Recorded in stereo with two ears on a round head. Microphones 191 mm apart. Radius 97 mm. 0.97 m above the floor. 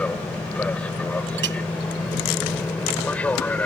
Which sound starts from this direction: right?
A clink, at 1.4 s.